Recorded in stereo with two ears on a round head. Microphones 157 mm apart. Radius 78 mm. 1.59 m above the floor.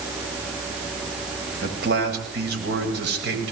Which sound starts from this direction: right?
A man speaking, at 1.6 s.